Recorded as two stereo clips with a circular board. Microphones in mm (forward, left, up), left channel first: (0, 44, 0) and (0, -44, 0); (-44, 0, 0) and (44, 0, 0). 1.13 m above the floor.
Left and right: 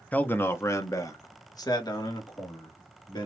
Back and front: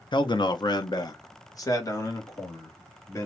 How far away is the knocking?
I don't hear knocking.